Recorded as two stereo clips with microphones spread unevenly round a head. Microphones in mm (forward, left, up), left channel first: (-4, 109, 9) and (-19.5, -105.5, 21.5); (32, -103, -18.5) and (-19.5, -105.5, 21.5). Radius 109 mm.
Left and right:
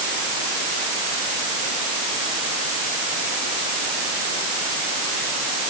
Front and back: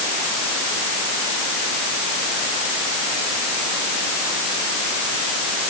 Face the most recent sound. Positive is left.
No sound to turn to.